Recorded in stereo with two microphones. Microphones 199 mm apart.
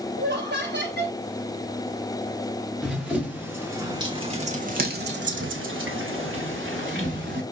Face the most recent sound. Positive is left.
turn(degrees=-60)  # may be behind; listen again after turning